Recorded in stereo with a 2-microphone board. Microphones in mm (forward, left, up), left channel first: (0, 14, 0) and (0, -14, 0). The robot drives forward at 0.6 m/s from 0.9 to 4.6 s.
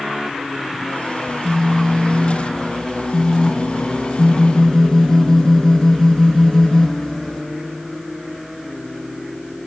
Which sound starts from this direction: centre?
A phone buzzing, at 1.3 s.